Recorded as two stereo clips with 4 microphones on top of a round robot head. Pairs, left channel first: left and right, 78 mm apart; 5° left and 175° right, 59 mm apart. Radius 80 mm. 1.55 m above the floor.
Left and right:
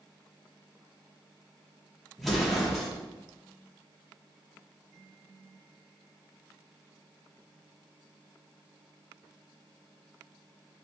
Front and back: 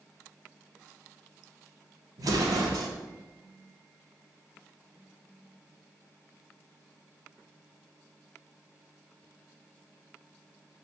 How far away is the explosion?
About 0.8 m.